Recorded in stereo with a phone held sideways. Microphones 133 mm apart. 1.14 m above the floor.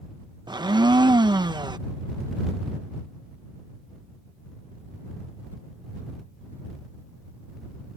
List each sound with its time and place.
0.5 s a blender: 30° right (ahead or behind)